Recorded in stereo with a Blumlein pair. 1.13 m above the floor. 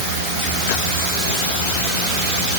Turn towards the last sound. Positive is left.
No sound to turn to.